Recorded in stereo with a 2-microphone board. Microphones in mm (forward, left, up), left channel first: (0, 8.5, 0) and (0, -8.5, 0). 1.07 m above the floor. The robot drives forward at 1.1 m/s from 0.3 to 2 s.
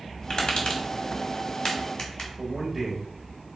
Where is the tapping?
45° left (ahead or behind), 1.4 m; by 2.3 s 35° left (ahead or behind), 1.7 m.